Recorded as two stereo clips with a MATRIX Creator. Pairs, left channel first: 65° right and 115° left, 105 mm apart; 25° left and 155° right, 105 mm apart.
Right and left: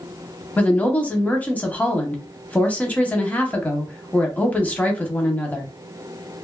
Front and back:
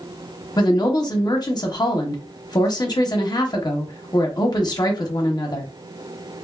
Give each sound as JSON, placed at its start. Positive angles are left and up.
{"t": 0.6, "sound": "a woman speaking", "azimuth_deg": 0, "distance_m": 0.7}